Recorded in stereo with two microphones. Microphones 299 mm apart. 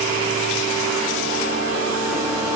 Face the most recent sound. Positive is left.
No sound to turn to.